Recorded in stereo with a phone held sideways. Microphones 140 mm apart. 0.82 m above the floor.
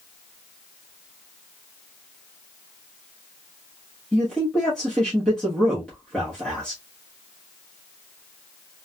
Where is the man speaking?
5° left (ahead or behind), 1.2 m.